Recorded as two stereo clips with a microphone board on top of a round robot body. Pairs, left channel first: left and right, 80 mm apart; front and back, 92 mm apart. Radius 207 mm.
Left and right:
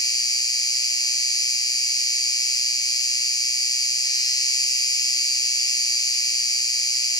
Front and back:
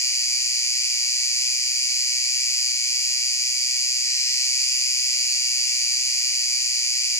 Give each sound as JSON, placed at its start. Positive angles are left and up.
{"t": 0.0, "sound": "an insect", "azimuth_deg": 55, "distance_m": 1.6}